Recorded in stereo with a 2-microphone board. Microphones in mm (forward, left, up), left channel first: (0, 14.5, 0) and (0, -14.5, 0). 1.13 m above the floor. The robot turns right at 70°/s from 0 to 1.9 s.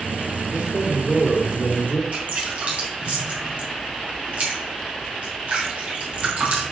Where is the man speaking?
45° right, 1.8 m; by 2.0 s 55° left, 1.8 m.